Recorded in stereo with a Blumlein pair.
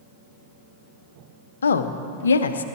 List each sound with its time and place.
1.6 s a woman speaking: 70° left, 0.8 m